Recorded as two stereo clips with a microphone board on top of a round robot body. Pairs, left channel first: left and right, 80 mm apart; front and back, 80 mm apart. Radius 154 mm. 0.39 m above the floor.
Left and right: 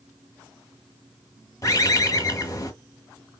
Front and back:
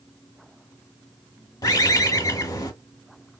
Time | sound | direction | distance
1.6 | a bird | 40° left | 1.2 m